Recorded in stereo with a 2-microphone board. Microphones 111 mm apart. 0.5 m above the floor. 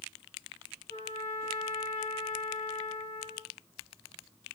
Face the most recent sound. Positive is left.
turn(degrees=85)